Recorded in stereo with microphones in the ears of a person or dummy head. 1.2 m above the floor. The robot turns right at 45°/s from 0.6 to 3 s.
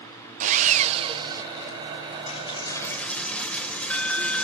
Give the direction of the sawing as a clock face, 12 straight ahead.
2 o'clock.